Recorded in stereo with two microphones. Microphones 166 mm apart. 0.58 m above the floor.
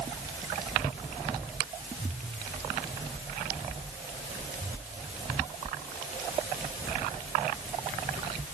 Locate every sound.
Only background noise.